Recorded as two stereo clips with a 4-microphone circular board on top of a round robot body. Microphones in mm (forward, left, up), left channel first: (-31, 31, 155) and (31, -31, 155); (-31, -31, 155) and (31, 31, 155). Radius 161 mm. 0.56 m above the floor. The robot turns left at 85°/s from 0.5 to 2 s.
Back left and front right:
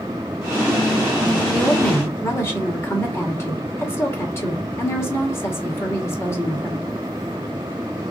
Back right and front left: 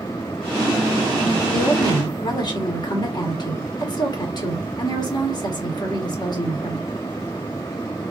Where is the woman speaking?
125° right, 1.3 m; by 6.9 s 165° right, 1.3 m.